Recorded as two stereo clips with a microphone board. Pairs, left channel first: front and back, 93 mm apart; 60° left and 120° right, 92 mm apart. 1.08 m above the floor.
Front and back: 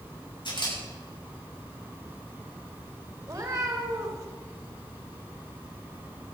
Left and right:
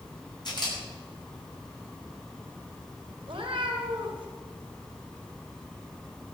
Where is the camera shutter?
25° left, 7.5 m.